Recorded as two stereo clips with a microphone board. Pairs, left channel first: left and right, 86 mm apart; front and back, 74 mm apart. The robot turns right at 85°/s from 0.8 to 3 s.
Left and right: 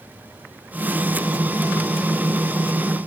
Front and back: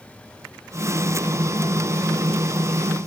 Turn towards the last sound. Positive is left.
No sound to turn to.